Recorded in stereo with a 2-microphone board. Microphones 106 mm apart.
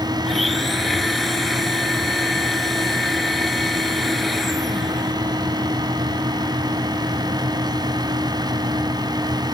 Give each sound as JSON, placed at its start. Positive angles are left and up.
{"t": 0.2, "sound": "a blender", "side_deg": 0}